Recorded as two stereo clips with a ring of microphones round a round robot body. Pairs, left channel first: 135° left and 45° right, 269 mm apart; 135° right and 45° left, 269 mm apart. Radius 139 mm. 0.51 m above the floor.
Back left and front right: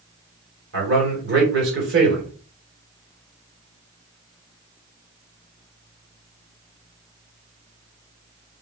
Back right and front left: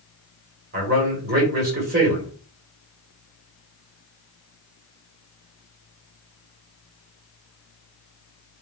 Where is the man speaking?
5° right, 1.8 m.